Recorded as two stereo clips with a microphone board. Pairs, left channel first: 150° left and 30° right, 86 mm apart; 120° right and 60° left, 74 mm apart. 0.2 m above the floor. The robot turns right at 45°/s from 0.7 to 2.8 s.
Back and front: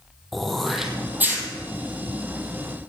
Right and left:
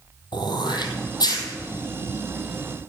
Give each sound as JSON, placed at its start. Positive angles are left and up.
{"t": 0.3, "sound": "throat clearing", "azimuth_deg": -120, "distance_m": 1.8}